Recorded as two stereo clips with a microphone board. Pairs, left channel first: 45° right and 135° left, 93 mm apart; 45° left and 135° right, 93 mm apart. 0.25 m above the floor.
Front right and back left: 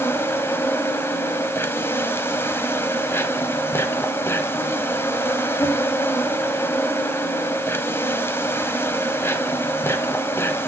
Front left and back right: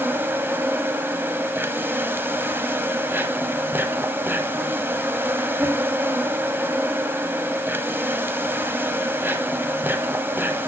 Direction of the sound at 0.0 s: 85° right.